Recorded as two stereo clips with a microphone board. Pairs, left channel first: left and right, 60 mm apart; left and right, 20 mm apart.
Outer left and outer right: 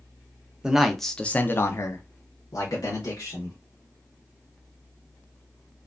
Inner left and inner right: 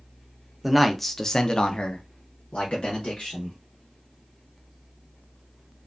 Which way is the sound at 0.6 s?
15° right (ahead or behind).